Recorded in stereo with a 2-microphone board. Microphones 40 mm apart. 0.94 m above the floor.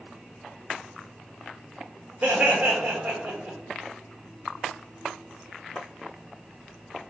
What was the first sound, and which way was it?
Laughter, 35° right (ahead or behind).